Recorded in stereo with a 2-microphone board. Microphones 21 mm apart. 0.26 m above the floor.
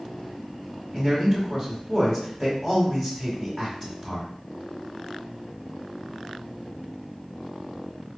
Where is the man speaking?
15° left (ahead or behind), 1.0 m.